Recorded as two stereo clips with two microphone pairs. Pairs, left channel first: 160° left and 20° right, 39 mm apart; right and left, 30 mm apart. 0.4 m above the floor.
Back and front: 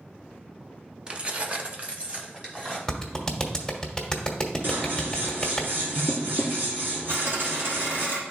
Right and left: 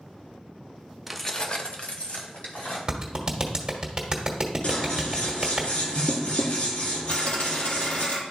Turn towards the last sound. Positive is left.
turn(degrees=-50)